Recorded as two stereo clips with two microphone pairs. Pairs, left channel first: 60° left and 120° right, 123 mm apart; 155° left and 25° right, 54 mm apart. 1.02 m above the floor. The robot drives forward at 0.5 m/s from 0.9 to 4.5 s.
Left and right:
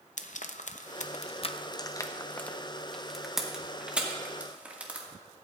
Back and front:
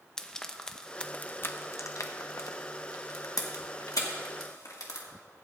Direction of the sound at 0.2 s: 75° left.